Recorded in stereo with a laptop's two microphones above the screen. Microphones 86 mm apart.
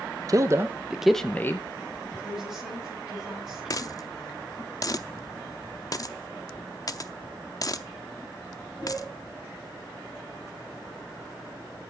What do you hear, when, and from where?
0.3 s a man speaking: 40° right (ahead or behind), 0.9 m; by 1.7 s 35° left (ahead or behind), 0.8 m
2.2 s a woman speaking: 10° right (ahead or behind), 9 m
3.7 s a dropped coin: 45° left (ahead or behind), 0.6 m